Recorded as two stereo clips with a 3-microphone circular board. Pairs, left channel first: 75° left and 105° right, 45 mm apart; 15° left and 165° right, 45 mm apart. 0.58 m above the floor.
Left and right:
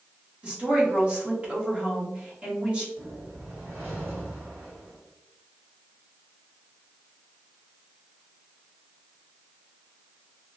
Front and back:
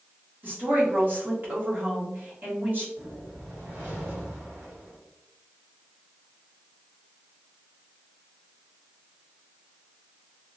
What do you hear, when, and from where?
0.4 s a woman speaking: 150° right, 1.4 m
3.0 s a whoosh: 135° right, 1.9 m